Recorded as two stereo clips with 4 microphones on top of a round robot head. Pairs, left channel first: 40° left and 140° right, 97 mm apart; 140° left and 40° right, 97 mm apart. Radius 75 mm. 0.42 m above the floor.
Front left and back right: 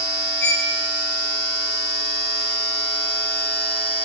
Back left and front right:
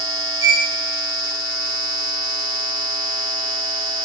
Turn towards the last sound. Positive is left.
turn(degrees=120)